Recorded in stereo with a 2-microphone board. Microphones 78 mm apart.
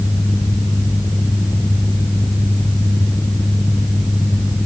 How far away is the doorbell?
I don't hear a doorbell.